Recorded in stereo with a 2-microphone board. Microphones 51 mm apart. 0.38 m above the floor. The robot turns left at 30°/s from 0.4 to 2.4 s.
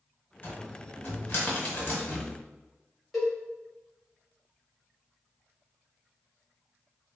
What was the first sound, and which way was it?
A cupboard door, 40° left (ahead or behind).